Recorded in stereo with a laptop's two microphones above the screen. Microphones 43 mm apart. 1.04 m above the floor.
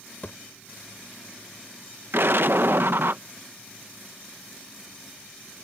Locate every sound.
0.2 s a thud: 40° left (ahead or behind)
2.1 s an explosion: 60° right (ahead or behind)